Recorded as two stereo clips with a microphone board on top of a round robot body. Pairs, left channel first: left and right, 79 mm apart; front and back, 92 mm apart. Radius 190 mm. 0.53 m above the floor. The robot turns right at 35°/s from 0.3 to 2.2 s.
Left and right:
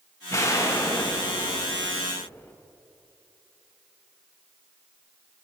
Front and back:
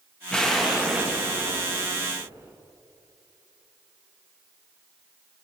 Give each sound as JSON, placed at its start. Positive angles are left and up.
{"t": 0.3, "sound": "an explosion", "azimuth_deg": 75, "distance_m": 1.3}